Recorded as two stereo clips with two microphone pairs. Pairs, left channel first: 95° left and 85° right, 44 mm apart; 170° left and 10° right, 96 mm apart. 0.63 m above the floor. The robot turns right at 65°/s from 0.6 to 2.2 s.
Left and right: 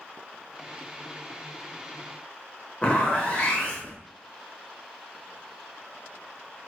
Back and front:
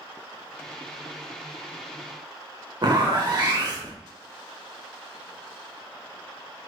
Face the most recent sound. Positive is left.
turn(degrees=35)